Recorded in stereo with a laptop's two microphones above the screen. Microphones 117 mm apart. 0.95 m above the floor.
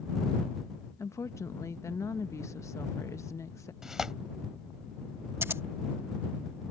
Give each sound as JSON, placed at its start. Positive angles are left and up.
{"t": 1.0, "sound": "a woman speaking", "side_deg": 25}
{"t": 3.8, "sound": "tearing paper", "side_deg": -5}
{"t": 5.4, "sound": "scissors", "side_deg": -20}